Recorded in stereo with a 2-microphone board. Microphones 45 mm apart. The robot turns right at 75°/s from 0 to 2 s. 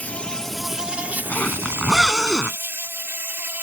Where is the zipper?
140° left; by 2.6 s 165° right.